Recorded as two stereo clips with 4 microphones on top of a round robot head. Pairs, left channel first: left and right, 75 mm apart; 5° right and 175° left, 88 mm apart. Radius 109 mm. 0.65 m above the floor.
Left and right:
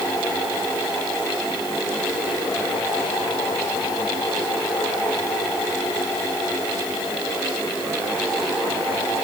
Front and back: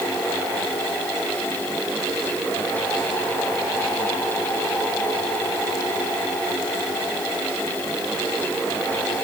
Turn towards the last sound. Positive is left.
No sound to turn to.